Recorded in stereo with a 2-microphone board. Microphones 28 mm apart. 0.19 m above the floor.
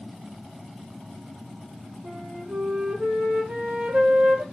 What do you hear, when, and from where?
2.0 s a flute: 65° right (ahead or behind), 6 m